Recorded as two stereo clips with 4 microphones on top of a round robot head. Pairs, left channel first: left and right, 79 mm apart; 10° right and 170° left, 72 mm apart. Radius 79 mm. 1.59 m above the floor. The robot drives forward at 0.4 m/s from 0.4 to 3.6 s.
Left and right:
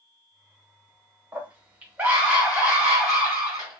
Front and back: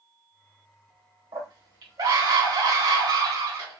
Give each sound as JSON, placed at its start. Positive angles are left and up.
{"t": 1.3, "sound": "a scream", "azimuth_deg": -160, "distance_m": 1.3}